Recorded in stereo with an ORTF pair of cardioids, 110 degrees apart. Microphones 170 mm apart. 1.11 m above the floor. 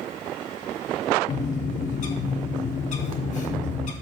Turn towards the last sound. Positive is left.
turn(degrees=50)